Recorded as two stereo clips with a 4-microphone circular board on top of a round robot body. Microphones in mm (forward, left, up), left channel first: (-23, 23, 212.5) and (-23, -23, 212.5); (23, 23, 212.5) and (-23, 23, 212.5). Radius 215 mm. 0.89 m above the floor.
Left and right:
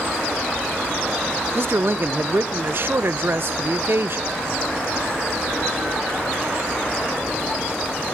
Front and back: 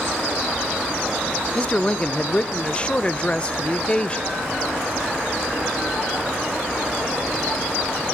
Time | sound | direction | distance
1.6 | a man speaking | 65° right | 0.7 m